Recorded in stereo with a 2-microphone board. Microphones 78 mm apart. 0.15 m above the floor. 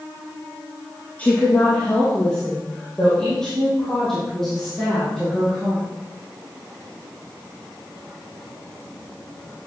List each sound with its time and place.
1.2 s a woman speaking: 20° left (ahead or behind), 3 m; by 5.8 s centre (ahead or behind), 6.5 m